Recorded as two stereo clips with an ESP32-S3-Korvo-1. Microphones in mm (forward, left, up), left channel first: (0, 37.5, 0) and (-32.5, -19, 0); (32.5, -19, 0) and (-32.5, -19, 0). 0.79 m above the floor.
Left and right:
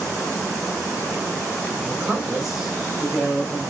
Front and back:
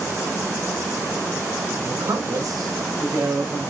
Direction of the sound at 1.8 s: 170° left.